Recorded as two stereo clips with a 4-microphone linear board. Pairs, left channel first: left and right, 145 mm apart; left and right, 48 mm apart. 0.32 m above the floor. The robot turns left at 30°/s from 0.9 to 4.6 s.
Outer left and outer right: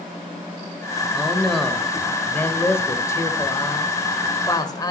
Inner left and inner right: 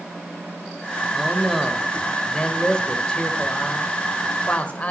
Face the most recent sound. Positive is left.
turn(degrees=25)  # may be behind; listen again after turning